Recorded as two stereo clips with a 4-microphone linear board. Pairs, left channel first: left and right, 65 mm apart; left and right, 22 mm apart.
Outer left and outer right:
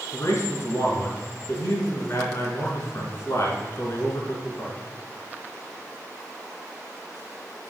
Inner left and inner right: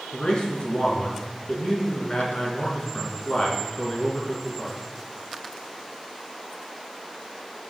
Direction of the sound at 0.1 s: 45° left (ahead or behind).